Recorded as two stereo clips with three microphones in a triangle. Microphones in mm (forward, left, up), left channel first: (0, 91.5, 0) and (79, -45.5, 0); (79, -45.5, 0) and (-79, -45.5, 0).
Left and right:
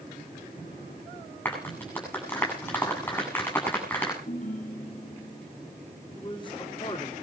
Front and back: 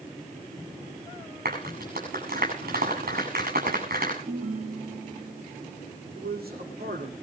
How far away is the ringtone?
About 2.5 m.